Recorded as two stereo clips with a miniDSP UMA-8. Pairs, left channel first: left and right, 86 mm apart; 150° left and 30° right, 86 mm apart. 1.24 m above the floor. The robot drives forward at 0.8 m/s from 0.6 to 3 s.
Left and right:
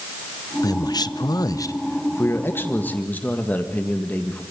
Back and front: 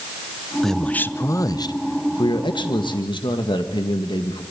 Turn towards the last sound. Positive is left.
turn(degrees=160)